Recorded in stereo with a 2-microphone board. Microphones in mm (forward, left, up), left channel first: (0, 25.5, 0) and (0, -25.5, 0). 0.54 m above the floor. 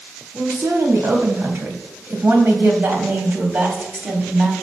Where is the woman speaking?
75° right (ahead or behind), 3.5 m; by 4.5 s 35° right (ahead or behind), 3 m.